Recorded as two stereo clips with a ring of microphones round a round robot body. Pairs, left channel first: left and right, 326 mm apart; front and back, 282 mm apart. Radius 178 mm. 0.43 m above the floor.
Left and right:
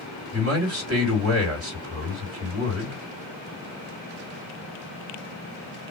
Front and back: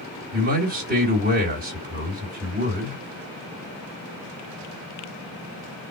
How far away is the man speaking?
About 2 m.